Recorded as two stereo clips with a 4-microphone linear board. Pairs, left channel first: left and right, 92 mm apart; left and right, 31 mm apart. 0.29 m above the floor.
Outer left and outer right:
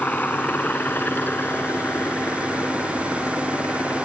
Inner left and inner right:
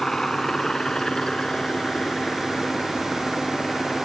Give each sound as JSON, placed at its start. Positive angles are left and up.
{"t": 0.0, "sound": "a helicopter", "side_deg": 20}